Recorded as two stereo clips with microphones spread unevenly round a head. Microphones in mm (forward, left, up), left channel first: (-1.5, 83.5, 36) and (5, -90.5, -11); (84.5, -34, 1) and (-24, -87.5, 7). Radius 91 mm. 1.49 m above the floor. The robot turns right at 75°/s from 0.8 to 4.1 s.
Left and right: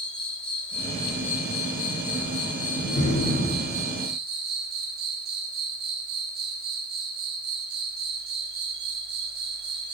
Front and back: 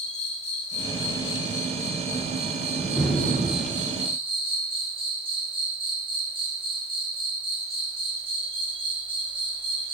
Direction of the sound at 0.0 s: 5° left.